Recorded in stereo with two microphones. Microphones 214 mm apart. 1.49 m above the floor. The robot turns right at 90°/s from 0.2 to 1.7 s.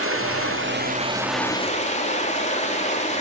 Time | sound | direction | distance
0.0 | running water | 105° right | 3 m